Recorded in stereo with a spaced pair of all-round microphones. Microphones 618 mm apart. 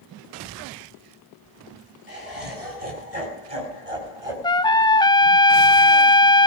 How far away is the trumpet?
About 0.6 m.